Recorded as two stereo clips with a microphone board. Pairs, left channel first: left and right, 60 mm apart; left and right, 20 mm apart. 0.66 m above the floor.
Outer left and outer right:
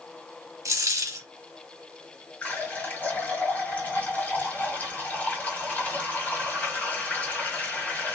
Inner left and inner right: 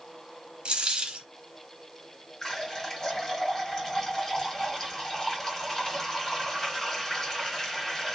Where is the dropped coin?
65° right (ahead or behind), 1.0 m.